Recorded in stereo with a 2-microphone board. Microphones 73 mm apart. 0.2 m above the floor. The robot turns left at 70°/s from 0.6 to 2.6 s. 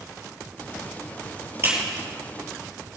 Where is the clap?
35° right (ahead or behind), 4.5 m; by 1.7 s 40° right (ahead or behind), 4.5 m.